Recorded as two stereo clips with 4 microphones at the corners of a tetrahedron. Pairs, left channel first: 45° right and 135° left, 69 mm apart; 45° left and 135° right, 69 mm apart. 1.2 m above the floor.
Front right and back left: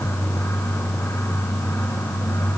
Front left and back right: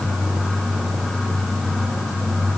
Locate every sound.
Only background noise.